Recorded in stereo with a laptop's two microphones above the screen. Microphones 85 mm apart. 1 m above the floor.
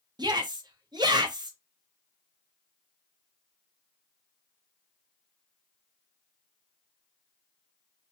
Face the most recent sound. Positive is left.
turn(degrees=-60)  # may be behind; listen again after turning